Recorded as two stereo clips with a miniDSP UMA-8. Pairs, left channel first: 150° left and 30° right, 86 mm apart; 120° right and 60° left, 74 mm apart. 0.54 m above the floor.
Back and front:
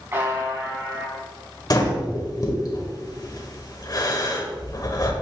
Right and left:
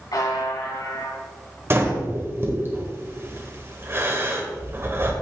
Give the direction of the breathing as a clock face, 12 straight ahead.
8 o'clock.